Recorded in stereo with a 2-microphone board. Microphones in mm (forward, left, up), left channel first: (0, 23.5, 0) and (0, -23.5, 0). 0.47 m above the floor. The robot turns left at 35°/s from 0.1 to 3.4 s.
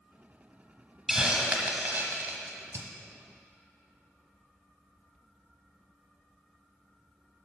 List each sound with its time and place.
1.1 s a hiss: 15° right (ahead or behind), 1.3 m; by 2.9 s 75° right (ahead or behind), 1.3 m